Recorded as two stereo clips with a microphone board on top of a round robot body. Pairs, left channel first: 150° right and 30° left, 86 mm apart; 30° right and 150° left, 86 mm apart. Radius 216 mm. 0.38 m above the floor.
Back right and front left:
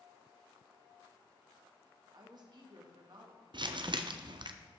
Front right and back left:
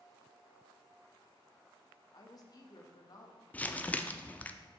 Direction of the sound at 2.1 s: 5° left.